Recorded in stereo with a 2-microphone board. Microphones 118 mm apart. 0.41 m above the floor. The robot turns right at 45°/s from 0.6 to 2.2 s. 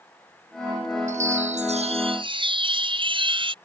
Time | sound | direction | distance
1.1 | a chime | 95° right | ?